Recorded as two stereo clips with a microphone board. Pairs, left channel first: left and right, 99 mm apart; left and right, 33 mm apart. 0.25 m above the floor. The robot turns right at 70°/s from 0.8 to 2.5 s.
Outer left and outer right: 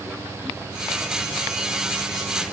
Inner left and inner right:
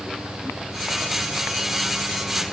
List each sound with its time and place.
Only background noise.